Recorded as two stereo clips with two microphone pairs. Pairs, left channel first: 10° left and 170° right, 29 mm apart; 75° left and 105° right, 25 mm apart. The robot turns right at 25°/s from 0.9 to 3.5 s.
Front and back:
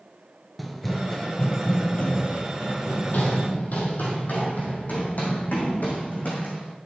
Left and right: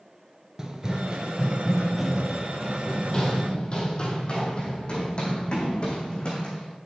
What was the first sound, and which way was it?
Running footsteps, 85° right.